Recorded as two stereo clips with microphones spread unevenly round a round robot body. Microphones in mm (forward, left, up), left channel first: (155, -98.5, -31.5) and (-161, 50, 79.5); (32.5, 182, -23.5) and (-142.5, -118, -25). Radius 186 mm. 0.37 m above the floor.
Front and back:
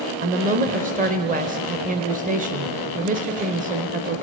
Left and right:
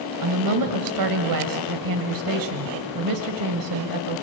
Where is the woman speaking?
130° right, 1.6 m.